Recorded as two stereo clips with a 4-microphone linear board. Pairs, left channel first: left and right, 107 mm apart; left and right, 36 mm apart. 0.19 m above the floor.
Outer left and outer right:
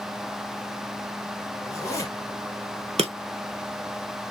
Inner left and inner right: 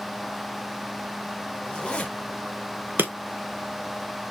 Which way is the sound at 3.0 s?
80° right.